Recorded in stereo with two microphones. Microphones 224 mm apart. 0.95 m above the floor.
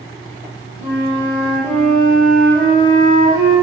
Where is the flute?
25° left (ahead or behind), 1.4 m.